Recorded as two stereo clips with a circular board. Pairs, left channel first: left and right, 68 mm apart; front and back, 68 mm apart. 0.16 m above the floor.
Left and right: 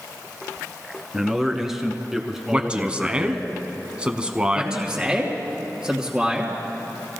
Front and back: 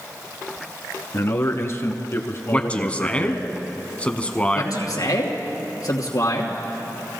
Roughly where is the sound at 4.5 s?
Ahead.